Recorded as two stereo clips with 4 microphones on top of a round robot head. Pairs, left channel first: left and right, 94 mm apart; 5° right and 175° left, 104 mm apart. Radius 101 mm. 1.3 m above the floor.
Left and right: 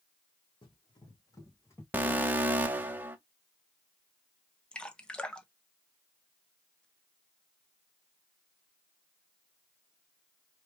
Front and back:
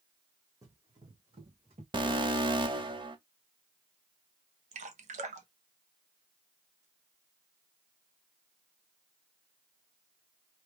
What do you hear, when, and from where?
0.6 s running footsteps: 120° left, 2.5 m; by 1.8 s 150° left, 3 m
1.9 s an alarm: 155° right, 1.2 m
4.7 s dripping: 170° left, 0.9 m